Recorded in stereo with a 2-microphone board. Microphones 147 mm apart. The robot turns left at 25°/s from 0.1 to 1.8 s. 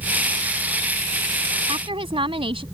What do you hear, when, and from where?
1.7 s a woman speaking: 35° right (ahead or behind); by 2.6 s 40° right (ahead or behind)